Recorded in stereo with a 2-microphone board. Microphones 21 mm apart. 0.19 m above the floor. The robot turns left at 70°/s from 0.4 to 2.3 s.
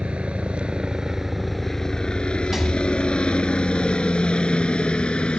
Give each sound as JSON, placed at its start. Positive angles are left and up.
{"t": 0.0, "sound": "a helicopter", "side_deg": -65}
{"t": 2.5, "sound": "a rattle", "side_deg": -15}